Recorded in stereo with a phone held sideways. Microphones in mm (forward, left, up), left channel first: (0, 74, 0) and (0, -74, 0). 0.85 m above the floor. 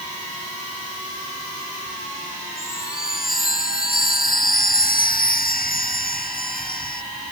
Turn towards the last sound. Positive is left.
turn(degrees=85)